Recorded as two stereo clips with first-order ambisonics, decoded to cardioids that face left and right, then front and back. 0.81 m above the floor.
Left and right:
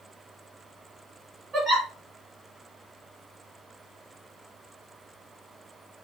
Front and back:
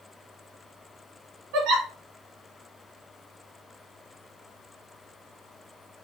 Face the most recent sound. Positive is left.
turn(degrees=-155)